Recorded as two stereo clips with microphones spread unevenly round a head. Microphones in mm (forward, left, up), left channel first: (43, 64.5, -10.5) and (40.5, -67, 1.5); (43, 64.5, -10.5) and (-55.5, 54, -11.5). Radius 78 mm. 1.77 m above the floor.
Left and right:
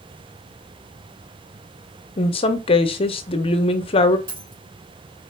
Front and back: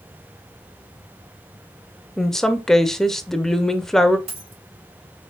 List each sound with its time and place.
2.2 s a woman speaking: 90° left, 0.7 m
4.3 s a dropped coin: 145° right, 2.5 m